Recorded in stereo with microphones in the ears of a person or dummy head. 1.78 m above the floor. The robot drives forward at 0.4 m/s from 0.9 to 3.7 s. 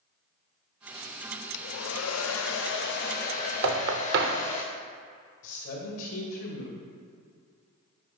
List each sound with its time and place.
1.5 s a hair dryer: 65° left (ahead or behind), 0.5 m; by 4.6 s 40° left (ahead or behind), 0.8 m
3.6 s knocking: 60° right (ahead or behind), 0.7 m
5.4 s a man speaking: 60° left (ahead or behind), 2.0 m